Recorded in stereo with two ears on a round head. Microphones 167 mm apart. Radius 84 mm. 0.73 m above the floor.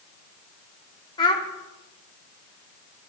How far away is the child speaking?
About 1.3 m.